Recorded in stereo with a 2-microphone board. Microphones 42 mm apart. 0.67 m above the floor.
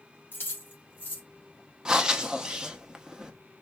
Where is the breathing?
20° right (ahead or behind), 0.6 m.